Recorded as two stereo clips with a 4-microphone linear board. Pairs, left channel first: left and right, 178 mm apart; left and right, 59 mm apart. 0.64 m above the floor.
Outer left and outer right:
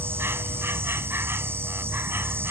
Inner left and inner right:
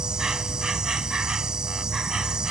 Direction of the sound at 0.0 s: 10° right (ahead or behind).